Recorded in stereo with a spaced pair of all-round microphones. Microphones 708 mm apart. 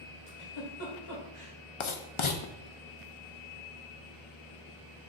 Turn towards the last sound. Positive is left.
turn(degrees=45)  # may be behind; listen again after turning